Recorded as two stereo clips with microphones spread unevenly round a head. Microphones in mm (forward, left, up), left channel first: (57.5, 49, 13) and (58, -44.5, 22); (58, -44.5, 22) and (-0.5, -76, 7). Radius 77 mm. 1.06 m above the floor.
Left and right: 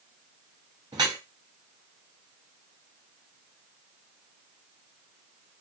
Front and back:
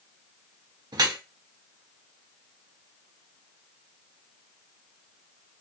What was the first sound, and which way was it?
Dripping, 145° right.